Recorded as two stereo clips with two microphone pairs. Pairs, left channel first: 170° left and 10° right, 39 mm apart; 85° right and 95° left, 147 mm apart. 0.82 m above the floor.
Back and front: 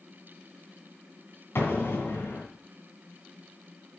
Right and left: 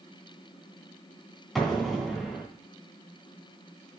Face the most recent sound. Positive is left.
turn(degrees=-175)